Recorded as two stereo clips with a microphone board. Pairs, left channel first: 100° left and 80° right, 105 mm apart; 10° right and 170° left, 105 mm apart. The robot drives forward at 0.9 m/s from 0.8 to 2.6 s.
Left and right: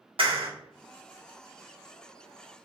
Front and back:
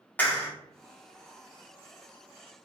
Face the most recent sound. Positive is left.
turn(degrees=-150)